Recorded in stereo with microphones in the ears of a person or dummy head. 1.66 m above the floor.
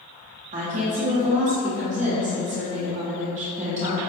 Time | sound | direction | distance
0.5 | a woman speaking | 35° right (ahead or behind) | 0.9 m